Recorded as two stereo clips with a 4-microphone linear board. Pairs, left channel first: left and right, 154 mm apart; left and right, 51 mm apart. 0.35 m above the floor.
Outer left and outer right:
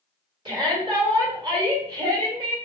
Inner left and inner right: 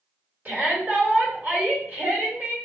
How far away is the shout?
About 1.8 m.